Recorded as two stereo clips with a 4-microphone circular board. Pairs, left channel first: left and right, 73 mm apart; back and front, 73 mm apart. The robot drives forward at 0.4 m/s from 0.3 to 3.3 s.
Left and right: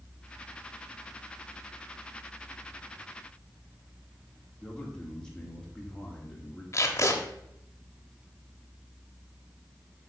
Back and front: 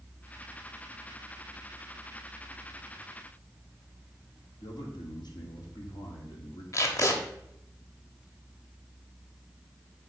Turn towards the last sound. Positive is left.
turn(degrees=135)